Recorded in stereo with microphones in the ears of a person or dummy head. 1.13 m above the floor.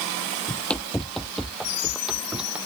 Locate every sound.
0.5 s running footsteps: 10° left (ahead or behind); by 2.6 s 10° right (ahead or behind)